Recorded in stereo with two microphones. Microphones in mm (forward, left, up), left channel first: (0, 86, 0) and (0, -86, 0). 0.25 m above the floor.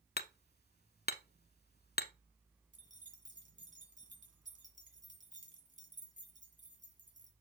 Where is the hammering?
65° left (ahead or behind), 0.6 m.